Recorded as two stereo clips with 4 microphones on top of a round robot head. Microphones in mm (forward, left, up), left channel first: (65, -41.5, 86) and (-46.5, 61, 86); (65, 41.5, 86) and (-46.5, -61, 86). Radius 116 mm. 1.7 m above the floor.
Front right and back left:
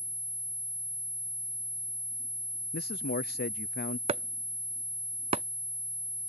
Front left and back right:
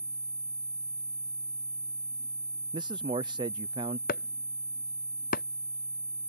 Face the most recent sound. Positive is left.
turn(degrees=85)